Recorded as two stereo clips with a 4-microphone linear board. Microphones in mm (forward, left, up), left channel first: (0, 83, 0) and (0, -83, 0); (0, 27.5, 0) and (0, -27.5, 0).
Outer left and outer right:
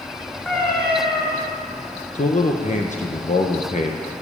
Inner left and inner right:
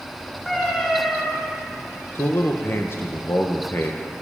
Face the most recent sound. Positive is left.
turn(degrees=45)  # may be behind; listen again after turning